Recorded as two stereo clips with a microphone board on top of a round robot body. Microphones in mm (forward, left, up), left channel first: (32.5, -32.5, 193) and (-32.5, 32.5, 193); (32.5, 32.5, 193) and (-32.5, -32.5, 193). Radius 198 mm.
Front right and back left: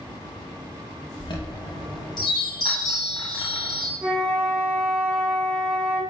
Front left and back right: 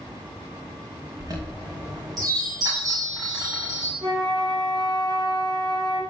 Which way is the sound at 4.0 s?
160° right.